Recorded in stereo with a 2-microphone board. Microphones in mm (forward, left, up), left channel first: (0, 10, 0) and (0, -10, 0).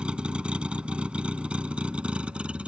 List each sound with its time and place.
0.0 s a vehicle: 60° right (ahead or behind); by 2.7 s 75° right (ahead or behind)